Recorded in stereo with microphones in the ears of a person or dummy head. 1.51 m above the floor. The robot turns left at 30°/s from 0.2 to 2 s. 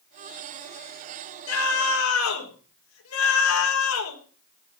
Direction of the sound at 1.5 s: 75° left (ahead or behind).